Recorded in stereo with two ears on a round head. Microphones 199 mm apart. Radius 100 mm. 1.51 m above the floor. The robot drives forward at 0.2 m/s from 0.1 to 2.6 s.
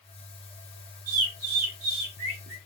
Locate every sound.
1.1 s a bird: 80° right, 1.3 m; by 2.6 s 65° right (ahead or behind), 1.4 m